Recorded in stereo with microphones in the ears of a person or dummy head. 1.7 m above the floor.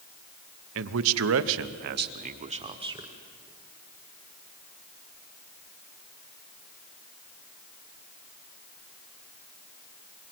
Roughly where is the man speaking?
Right.